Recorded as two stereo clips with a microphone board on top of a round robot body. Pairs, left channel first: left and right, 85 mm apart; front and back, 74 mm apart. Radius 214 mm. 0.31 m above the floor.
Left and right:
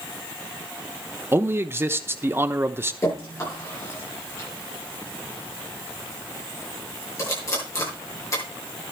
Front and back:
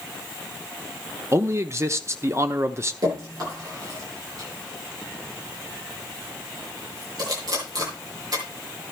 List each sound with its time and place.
1.3 s a man speaking: 145° right, 1.1 m
3.0 s dripping: 145° left, 8.5 m